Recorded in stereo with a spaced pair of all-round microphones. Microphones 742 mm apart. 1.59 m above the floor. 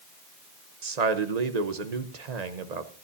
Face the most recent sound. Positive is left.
turn(degrees=-60)  # may be behind; listen again after turning